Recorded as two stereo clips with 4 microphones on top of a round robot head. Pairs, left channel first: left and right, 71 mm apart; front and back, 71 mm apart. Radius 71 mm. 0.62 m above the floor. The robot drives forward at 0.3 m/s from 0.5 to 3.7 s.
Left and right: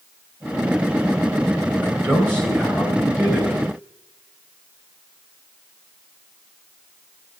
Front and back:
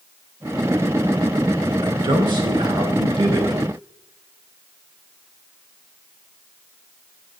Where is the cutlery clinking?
No cutlery clinking in this recording.